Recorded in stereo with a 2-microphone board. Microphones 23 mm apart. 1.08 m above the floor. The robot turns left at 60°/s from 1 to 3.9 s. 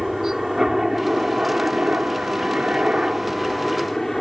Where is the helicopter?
20° right; by 4.2 s 165° left.